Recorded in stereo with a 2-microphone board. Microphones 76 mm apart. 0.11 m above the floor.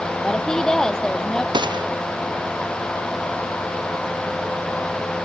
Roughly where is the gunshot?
Right.